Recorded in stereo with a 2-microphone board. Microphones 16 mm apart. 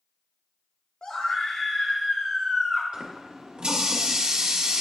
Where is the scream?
60° left (ahead or behind), 0.7 m; by 2.8 s 40° left (ahead or behind), 2 m.